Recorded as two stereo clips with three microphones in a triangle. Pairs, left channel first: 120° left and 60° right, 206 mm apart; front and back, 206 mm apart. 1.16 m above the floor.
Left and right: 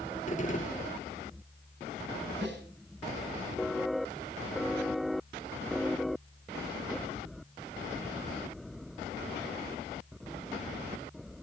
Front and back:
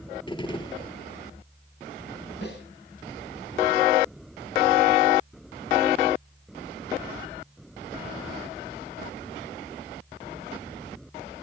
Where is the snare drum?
35° right, 9 m.